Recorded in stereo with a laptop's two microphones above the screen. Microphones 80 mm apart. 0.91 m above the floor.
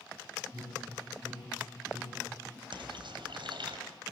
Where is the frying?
85° right, 3.5 m.